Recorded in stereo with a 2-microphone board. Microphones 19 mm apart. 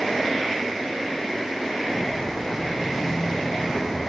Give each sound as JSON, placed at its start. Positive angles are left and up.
{"t": 1.8, "sound": "footsteps", "side_deg": 25, "distance_m": 6.0}